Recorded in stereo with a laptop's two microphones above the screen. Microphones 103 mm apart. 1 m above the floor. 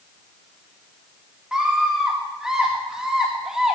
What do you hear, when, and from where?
1.5 s a scream: 5° right (ahead or behind), 1.6 m